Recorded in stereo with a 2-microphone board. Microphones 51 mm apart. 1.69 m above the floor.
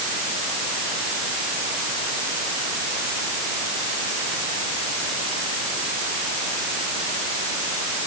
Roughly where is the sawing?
I don't hear sawing.